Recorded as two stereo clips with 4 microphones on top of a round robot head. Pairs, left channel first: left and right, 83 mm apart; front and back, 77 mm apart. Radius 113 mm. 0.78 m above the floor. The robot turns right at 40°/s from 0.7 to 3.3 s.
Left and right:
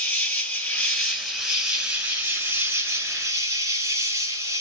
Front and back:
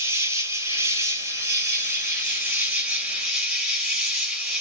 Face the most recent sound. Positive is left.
turn(degrees=-100)